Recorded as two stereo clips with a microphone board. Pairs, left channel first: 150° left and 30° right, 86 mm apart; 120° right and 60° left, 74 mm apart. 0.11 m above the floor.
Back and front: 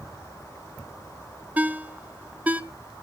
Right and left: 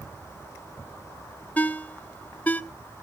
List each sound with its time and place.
1.6 s a ringtone: 80° right, 0.6 m